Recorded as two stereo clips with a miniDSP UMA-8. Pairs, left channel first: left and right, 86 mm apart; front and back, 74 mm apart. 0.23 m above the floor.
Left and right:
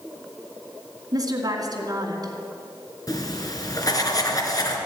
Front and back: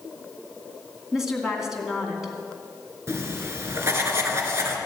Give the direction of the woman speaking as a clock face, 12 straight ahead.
3 o'clock.